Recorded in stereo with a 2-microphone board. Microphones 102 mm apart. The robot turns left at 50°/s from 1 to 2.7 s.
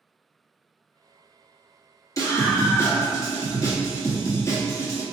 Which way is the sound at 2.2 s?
30° left (ahead or behind).